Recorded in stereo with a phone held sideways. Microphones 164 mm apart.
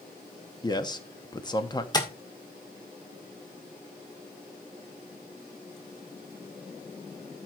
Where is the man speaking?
25° left (ahead or behind), 1.1 m.